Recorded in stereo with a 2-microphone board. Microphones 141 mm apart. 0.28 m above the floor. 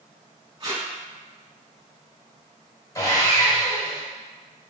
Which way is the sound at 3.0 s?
25° left (ahead or behind).